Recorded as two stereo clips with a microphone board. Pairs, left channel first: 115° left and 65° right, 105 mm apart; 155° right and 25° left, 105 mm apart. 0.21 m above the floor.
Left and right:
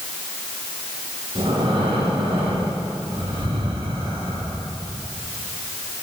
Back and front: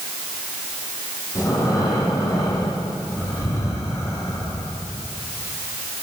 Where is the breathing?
100° right, 9 m.